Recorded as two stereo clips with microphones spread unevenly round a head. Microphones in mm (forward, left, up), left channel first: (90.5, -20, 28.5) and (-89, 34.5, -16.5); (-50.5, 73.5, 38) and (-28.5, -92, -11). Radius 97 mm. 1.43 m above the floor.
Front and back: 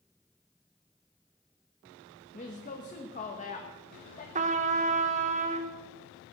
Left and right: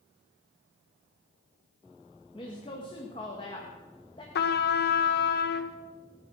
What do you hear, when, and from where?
2.3 s a woman speaking: 35° left, 1.5 m
4.3 s a trumpet: 105° left, 1.0 m